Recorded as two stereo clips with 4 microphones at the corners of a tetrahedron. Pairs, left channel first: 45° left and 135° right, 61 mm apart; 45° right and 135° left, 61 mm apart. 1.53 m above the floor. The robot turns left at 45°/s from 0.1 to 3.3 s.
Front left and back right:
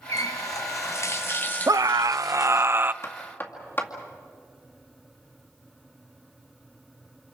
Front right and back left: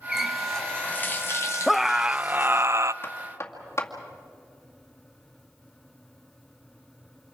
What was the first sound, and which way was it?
A running tap, 55° left.